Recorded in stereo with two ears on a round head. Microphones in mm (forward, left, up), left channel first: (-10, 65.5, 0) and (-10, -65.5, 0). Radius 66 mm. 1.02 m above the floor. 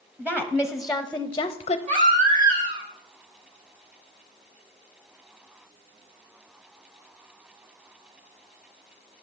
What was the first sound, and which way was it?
A woman speaking, 15° right (ahead or behind).